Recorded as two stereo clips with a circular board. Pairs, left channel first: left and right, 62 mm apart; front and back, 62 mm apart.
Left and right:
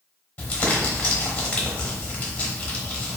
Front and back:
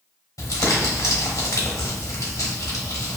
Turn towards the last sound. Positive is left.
turn(degrees=25)